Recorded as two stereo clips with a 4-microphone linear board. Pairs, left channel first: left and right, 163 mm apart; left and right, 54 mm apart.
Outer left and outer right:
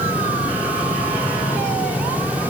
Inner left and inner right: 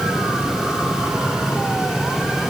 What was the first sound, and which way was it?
Only background noise.